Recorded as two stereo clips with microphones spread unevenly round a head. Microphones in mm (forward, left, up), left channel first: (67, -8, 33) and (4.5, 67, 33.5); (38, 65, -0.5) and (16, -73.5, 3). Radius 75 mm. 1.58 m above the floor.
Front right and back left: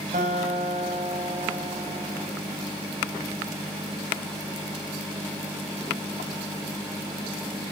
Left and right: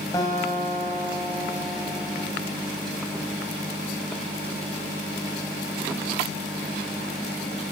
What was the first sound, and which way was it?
A guitar, 150° left.